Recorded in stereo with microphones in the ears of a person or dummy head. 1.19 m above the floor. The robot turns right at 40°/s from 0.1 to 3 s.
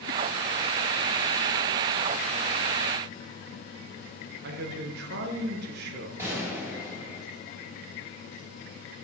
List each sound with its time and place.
4.4 s a man speaking: 55° right (ahead or behind), 1.0 m
6.2 s a gunshot: 15° right (ahead or behind), 2.5 m